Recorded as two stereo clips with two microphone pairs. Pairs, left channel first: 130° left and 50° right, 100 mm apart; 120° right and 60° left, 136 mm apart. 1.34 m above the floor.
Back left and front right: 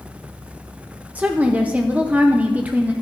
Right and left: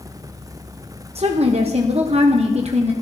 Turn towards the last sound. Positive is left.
turn(degrees=25)